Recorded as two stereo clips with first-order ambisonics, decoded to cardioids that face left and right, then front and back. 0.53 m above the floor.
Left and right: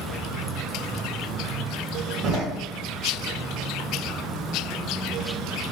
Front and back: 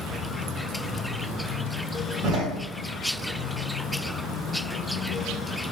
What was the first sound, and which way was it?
A door slam, 140° right.